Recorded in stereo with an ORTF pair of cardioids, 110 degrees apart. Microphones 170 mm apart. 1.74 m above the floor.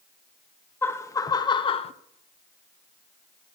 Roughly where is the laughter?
Ahead.